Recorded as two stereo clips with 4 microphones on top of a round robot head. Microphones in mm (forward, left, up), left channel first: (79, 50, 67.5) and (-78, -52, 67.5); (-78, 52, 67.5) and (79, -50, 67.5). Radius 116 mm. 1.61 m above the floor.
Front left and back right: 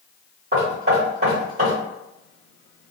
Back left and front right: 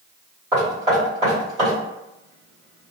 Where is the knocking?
95° right, 1.4 m.